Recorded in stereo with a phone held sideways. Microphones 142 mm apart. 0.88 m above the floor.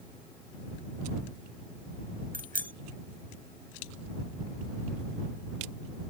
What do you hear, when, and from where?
2.3 s a bicycle bell: 90° right